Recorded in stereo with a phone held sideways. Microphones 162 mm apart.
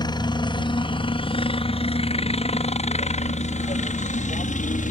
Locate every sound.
0.0 s a helicopter: 25° left (ahead or behind); by 4.9 s 50° left (ahead or behind)